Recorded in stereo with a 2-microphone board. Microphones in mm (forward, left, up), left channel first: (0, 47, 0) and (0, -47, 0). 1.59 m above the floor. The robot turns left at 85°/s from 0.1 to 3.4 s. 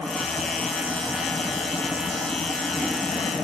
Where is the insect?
80° left, 2 m; by 3.4 s 160° left, 2 m.